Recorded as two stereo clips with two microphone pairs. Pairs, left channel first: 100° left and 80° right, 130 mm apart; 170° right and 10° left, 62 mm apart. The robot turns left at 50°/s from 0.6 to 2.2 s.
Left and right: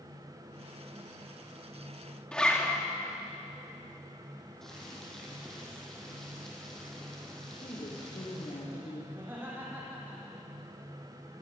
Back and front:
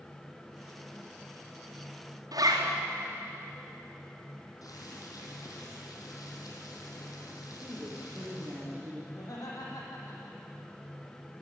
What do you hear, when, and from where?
2.3 s a zipper: 20° left, 4.5 m
4.6 s boiling: 170° right, 4.5 m
7.5 s a woman speaking: 65° left, 6 m
9.1 s laughter: 155° right, 7.5 m